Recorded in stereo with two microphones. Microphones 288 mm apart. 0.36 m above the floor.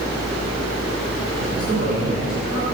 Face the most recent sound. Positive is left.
turn(degrees=-70)  # may be behind; listen again after turning